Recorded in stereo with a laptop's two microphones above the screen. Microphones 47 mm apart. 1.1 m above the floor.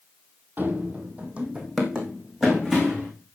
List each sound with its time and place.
0.6 s running footsteps: 45° right (ahead or behind), 1.6 m; by 3.1 s 5° right (ahead or behind), 3 m